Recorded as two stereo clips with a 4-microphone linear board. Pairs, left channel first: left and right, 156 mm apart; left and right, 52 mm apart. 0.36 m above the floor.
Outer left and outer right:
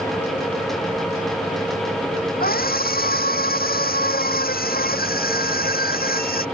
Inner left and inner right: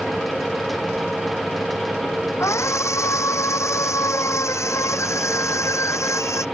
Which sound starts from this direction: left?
A scream, at 2.4 s.